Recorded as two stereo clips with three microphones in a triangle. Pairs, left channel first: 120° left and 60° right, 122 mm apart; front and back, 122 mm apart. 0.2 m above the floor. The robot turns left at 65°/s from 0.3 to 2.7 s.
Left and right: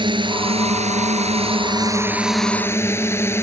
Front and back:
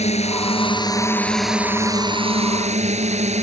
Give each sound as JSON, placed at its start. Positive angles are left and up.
{"t": 0.0, "sound": "a drone", "azimuth_deg": -15}